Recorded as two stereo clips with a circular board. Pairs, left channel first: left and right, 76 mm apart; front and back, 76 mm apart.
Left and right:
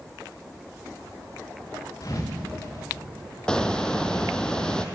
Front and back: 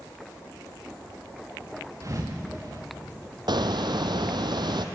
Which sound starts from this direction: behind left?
A thud, at 2.0 s.